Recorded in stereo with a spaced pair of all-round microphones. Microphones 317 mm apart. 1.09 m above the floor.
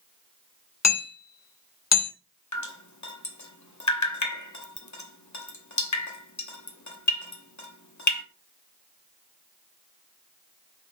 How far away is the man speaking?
No man speaking in this recording.